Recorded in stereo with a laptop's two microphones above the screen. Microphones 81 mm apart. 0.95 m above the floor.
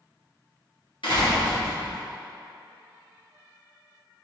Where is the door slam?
75° left (ahead or behind), 1.3 m.